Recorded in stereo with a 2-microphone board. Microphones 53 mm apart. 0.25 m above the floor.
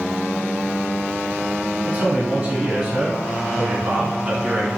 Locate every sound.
1.8 s a man speaking: 25° right (ahead or behind), 1.4 m